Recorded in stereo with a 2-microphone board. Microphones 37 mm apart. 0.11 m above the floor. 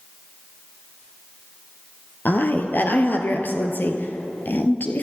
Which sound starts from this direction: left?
A woman speaking, at 2.2 s.